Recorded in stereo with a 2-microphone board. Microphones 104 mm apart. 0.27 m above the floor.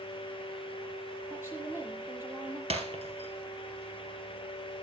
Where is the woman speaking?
25° right (ahead or behind), 7.5 m.